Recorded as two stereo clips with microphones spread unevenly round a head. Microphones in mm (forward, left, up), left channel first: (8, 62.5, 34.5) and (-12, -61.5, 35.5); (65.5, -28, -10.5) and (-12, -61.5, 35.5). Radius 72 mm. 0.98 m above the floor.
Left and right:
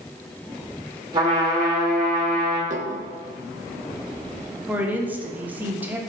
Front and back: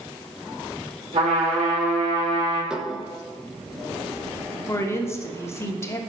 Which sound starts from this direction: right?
Dishes clattering, at 2.7 s.